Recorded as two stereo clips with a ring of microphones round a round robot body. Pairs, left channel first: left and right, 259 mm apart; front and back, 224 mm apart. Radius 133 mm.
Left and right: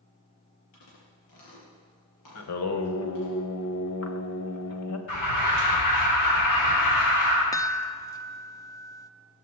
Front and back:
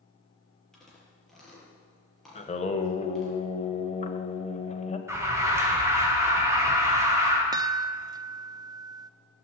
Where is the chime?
140° left, 0.7 m.